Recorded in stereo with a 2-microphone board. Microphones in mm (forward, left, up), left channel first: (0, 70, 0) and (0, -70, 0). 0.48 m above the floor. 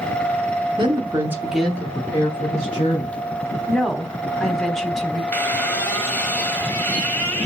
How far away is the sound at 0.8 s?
About 1.0 m.